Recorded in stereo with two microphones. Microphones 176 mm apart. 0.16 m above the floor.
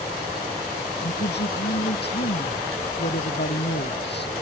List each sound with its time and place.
1.0 s a woman speaking: 75° left (ahead or behind)